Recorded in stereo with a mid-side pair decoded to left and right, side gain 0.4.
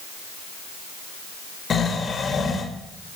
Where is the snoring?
50° left, 2.5 m.